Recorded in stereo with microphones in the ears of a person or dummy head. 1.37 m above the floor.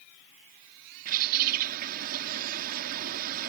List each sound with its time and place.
1.1 s a bird: 50° right (ahead or behind)